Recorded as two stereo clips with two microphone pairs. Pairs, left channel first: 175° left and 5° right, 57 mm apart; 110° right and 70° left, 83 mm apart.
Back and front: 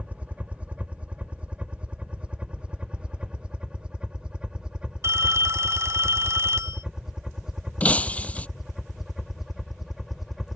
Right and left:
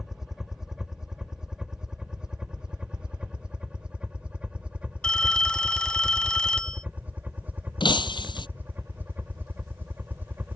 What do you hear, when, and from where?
0.0 s a helicopter: 5° right; by 10.6 s 75° left
5.0 s a phone ringing: 30° right
7.8 s breaking glass: 120° right